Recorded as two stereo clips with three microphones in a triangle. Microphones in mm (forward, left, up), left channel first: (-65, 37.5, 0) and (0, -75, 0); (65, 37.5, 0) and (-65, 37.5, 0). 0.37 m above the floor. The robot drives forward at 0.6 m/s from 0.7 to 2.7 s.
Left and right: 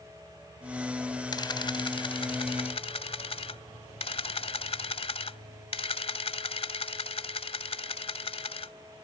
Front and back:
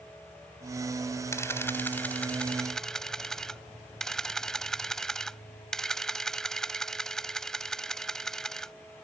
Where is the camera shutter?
65° left; by 8.7 s 85° left.